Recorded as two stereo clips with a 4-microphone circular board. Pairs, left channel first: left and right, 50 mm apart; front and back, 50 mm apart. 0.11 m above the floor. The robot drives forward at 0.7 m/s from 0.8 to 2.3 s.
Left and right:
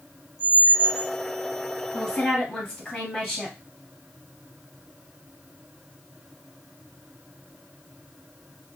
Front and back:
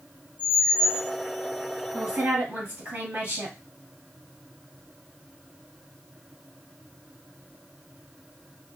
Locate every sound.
0.4 s a squeak: 25° right, 1.5 m; by 1.1 s 30° right, 1.4 m
1.9 s a woman speaking: 155° left, 1.9 m; by 3.6 s 160° left, 2 m